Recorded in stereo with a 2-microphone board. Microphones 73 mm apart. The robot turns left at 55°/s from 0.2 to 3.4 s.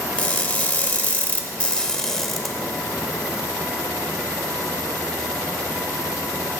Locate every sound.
0.2 s crushing: 20° left (ahead or behind), 1.0 m; by 2.5 s centre (ahead or behind), 1.0 m